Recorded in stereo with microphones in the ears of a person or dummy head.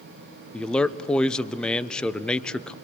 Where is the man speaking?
5° left (ahead or behind), 0.5 m.